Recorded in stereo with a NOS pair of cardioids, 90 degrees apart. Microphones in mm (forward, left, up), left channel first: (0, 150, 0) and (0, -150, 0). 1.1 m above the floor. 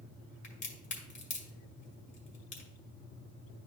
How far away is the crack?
About 2 m.